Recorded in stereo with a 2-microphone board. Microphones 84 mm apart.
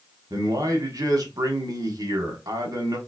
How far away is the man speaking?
About 1.2 m.